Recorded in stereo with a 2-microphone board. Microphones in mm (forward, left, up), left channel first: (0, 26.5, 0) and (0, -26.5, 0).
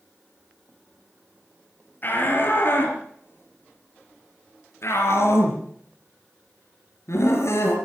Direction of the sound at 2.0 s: 40° left (ahead or behind).